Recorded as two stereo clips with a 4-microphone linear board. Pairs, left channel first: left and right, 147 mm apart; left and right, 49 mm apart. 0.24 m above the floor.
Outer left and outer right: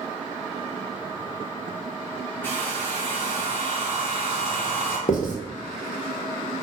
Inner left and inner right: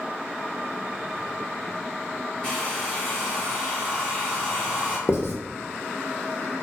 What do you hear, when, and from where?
2.4 s a hair dryer: 15° left (ahead or behind), 1.4 m
5.1 s writing: 65° left (ahead or behind), 0.7 m